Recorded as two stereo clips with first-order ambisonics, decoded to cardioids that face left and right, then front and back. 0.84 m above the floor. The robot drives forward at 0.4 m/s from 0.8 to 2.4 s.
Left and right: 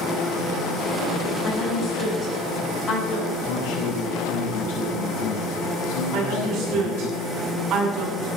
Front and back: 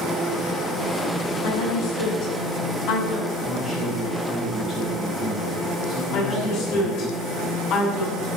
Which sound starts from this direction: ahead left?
A woman speaking, at 1.4 s.